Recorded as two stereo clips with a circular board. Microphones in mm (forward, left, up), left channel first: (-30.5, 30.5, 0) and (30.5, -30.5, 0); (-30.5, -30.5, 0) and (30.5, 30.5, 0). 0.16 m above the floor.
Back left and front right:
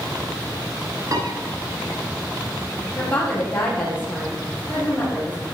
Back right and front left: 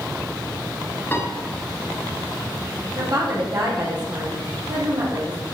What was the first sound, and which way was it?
A piano, 75° right.